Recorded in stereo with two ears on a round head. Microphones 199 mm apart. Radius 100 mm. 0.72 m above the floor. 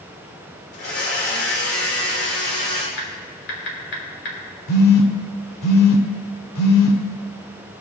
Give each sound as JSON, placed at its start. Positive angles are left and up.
{"t": 0.7, "sound": "a blender", "side_deg": 50, "distance_m": 3.0}
{"t": 3.0, "sound": "typing on a keyboard", "side_deg": 50, "distance_m": 2.5}
{"t": 4.7, "sound": "a phone buzzing", "side_deg": 85, "distance_m": 1.5}